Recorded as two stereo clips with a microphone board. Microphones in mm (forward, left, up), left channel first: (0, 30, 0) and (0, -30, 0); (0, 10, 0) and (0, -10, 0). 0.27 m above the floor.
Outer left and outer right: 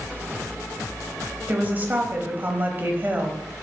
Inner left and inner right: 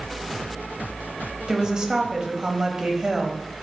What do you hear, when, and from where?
1.5 s a woman speaking: 30° right (ahead or behind), 1.0 m